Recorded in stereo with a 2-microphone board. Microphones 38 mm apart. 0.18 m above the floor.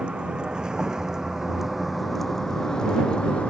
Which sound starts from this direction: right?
A vehicle, at 0.0 s.